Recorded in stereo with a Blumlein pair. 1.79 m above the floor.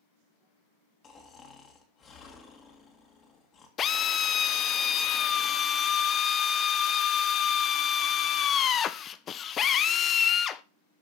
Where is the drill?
25° left, 0.5 m.